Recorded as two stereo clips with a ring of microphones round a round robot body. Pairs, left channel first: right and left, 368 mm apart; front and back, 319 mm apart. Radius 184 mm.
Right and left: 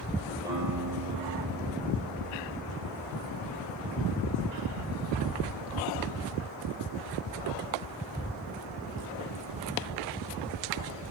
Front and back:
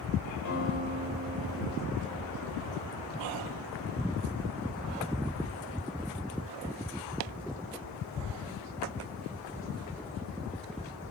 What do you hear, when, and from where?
0.5 s a guitar: 5° left, 9 m